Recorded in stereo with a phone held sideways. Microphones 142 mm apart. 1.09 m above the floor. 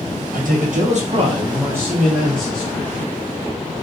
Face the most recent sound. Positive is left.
turn(degrees=15)  # may be behind; listen again after turning